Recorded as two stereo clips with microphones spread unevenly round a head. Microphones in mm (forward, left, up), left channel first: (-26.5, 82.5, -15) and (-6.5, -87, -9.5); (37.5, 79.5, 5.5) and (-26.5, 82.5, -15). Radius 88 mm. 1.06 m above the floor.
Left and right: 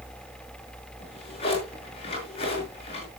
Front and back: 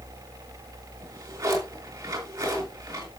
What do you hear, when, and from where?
1.0 s a drawer: 155° left, 6 m